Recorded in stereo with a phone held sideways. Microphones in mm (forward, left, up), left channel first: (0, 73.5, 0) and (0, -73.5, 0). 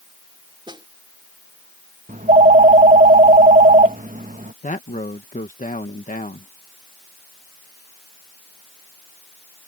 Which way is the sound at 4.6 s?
60° left (ahead or behind).